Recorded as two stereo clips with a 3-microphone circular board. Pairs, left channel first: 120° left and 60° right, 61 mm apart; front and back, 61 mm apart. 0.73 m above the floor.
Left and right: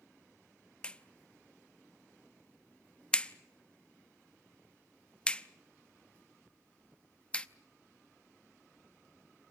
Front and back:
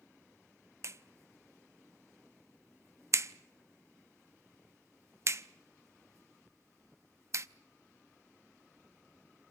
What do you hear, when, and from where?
0.8 s a clap: 175° right, 0.6 m